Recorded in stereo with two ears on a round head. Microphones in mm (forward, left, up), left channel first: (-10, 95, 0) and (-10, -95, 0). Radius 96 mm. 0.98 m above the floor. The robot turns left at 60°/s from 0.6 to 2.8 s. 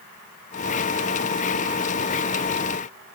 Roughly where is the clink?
No clink in this recording.